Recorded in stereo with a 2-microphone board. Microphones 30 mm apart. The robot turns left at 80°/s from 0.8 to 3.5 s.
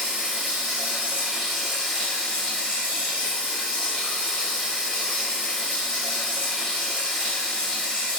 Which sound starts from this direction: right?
Running water, at 0.0 s.